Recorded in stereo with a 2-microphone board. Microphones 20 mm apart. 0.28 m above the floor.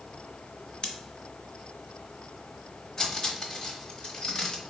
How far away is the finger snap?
No finger snap in this recording.